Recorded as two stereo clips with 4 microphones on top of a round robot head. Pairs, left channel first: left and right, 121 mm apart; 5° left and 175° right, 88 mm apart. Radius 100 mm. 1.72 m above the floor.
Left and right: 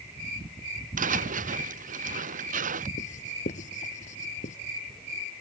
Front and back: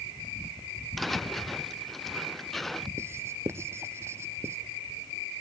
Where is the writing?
125° left.